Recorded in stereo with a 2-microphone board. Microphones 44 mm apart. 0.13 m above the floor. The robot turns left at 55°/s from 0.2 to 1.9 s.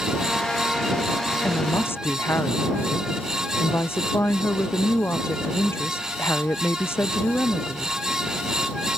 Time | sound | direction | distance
1.4 | a woman speaking | 45° left (ahead or behind) | ?